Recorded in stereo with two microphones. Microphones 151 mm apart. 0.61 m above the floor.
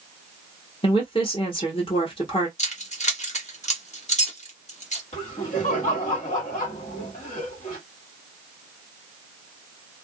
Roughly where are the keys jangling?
Left.